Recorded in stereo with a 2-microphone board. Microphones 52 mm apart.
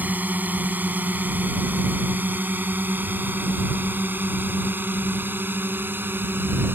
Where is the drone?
35° right (ahead or behind); by 6.7 s 40° right (ahead or behind).